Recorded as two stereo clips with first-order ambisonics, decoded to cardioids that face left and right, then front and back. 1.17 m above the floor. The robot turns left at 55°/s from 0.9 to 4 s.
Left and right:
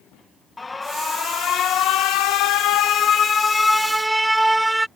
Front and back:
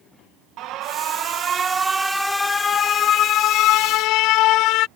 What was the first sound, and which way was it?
An alarm, 165° left.